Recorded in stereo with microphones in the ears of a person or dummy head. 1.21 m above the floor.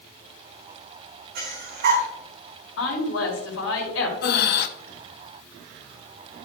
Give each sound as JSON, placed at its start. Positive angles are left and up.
{"t": 1.4, "sound": "breathing", "side_deg": -55, "distance_m": 3.0}
{"t": 2.8, "sound": "a woman speaking", "side_deg": 70, "distance_m": 4.5}
{"t": 4.2, "sound": "breathing", "side_deg": 50, "distance_m": 0.8}